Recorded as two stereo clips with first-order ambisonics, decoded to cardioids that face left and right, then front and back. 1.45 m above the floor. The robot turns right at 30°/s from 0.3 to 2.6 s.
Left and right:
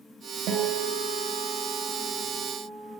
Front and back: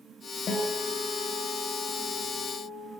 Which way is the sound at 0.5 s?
60° right.